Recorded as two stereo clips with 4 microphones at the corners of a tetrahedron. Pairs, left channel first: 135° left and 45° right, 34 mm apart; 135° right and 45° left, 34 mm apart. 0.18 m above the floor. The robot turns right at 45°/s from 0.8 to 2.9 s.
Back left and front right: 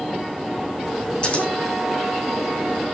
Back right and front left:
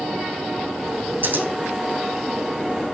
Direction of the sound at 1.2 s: 70° left.